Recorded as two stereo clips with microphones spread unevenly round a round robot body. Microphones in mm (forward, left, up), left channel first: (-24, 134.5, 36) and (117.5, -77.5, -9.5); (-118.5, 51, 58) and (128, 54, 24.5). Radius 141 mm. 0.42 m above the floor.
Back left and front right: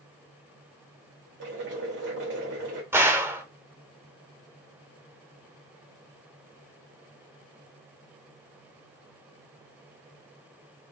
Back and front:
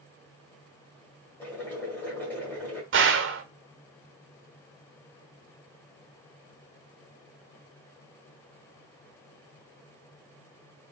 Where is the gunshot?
15° left, 0.9 m.